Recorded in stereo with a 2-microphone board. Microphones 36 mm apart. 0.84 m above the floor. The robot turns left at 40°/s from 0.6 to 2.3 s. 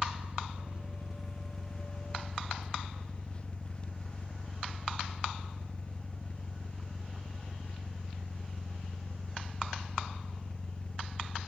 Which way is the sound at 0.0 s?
145° right.